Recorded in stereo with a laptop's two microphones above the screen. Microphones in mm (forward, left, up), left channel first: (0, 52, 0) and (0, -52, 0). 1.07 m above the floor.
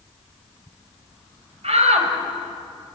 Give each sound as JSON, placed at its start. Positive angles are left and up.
{"t": 1.6, "sound": "a shout", "side_deg": -80, "distance_m": 5.0}